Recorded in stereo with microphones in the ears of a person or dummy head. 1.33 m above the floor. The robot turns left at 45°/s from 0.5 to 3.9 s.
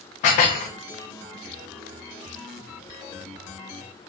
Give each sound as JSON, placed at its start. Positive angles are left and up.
{"t": 0.2, "sound": "dishes clattering", "side_deg": 35, "distance_m": 0.6}